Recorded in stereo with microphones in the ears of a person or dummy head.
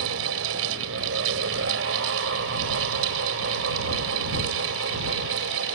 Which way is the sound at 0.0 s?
90° right.